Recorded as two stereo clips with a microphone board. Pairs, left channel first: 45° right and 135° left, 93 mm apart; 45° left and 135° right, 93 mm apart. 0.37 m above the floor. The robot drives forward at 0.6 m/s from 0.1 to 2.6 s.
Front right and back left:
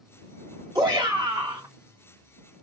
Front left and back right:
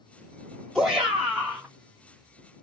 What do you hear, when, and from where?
0.8 s a shout: 130° left, 1.2 m; by 1.7 s 150° left, 1.5 m